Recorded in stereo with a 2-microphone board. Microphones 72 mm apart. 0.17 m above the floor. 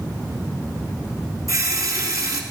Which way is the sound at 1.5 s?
55° right (ahead or behind).